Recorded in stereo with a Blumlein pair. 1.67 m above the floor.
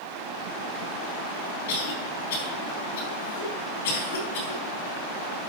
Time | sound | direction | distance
1.7 | a cough | 55° left | 3.5 m